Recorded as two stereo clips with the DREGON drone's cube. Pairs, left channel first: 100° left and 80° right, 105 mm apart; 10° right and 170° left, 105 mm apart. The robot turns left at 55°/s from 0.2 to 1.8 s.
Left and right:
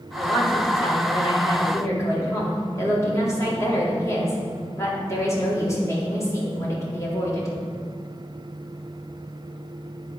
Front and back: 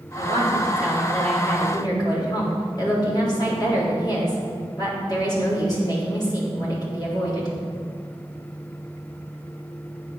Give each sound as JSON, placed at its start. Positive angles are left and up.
{"t": 0.2, "sound": "a woman speaking", "azimuth_deg": 125, "distance_m": 3.5}